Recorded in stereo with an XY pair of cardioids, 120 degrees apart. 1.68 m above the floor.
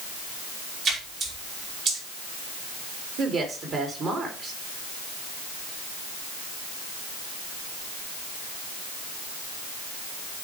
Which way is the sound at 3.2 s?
45° right.